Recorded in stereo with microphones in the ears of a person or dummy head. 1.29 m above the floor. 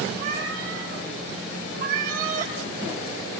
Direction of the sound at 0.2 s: 55° right (ahead or behind).